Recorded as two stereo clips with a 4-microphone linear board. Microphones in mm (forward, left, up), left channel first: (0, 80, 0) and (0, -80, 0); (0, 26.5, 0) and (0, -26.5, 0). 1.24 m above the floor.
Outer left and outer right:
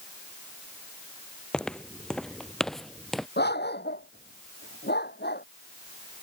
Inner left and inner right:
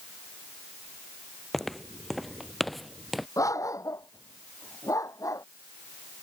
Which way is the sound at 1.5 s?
5° left (ahead or behind).